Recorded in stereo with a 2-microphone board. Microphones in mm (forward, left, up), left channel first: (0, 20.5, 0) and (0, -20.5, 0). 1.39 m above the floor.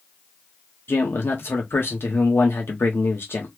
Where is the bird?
No bird in this recording.